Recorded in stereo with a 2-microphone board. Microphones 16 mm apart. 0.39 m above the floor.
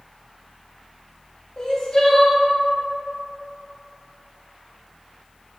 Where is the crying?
40° left (ahead or behind), 0.7 m.